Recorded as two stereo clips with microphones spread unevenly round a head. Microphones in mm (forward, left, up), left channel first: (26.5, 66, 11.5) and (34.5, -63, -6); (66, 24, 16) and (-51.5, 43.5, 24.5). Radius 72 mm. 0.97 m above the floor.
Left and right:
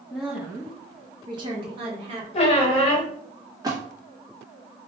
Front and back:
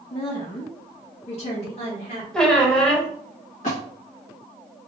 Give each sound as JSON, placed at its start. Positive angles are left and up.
{"t": 0.1, "sound": "a woman speaking", "azimuth_deg": 0, "distance_m": 1.0}
{"t": 2.3, "sound": "a squeak", "azimuth_deg": 80, "distance_m": 1.0}
{"t": 3.6, "sound": "a splash", "azimuth_deg": -25, "distance_m": 1.5}